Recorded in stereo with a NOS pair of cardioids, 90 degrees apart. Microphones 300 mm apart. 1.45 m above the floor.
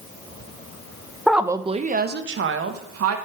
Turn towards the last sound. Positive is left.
turn(degrees=-55)